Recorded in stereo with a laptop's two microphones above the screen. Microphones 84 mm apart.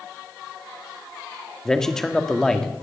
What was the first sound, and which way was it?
A man speaking, 5° left (ahead or behind).